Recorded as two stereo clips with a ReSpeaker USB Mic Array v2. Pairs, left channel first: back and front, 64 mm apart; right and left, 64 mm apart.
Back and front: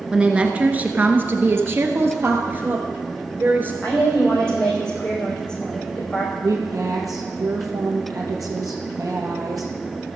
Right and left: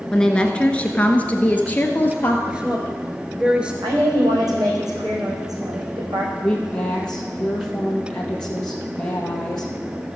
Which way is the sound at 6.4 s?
15° right.